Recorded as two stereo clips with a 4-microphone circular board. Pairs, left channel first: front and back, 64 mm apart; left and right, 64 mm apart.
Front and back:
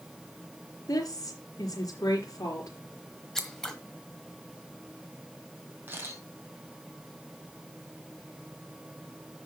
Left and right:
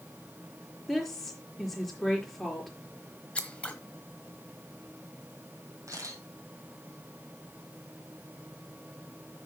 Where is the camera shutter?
125° right, 3.5 m.